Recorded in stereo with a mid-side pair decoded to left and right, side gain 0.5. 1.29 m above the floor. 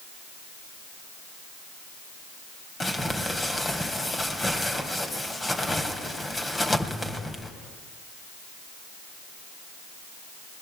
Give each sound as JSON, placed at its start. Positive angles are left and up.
{"t": 2.8, "sound": "crumpling", "azimuth_deg": 20, "distance_m": 3.0}